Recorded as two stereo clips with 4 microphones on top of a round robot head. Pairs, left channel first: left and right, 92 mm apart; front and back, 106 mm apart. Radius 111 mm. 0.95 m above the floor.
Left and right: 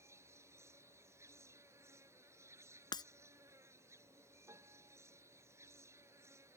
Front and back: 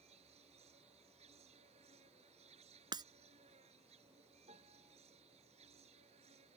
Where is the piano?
150° right.